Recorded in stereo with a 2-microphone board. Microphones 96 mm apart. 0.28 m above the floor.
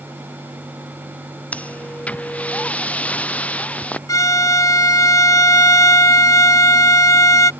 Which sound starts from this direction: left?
A violin, at 4.1 s.